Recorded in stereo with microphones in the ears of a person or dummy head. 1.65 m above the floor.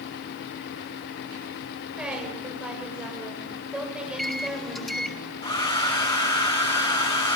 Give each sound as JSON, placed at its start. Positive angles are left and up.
{"t": 2.0, "sound": "a woman speaking", "side_deg": -5, "distance_m": 8.0}
{"t": 4.1, "sound": "a microwave", "side_deg": 0, "distance_m": 1.8}
{"t": 5.4, "sound": "a hair dryer", "side_deg": 30, "distance_m": 3.0}